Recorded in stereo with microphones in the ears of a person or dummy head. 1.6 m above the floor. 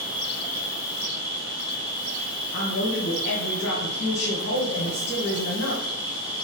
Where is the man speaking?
65° left (ahead or behind), 0.9 m.